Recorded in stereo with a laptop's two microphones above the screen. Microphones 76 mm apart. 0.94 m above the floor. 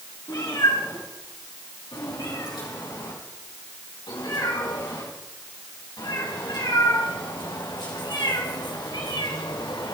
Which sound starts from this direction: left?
A cat meowing, at 0.3 s.